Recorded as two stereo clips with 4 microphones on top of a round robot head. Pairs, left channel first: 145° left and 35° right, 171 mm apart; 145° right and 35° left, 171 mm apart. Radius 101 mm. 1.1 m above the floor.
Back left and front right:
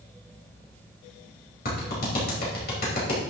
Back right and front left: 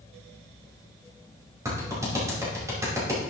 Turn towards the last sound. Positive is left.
turn(degrees=110)